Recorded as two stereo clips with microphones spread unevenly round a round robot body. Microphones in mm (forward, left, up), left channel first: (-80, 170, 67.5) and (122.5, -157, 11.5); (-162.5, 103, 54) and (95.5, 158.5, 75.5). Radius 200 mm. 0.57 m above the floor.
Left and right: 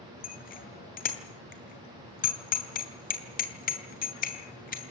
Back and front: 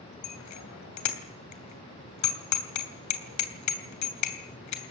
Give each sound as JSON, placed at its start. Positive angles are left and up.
{"t": 0.2, "sound": "a bicycle bell", "azimuth_deg": -170, "distance_m": 2.5}